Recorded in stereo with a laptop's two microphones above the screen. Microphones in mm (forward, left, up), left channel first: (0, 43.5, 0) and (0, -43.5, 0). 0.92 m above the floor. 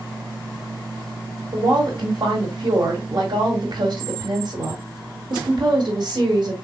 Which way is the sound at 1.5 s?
55° right (ahead or behind).